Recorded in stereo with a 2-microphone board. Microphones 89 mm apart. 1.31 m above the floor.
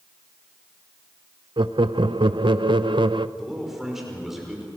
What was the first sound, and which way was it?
Laughter, 60° right (ahead or behind).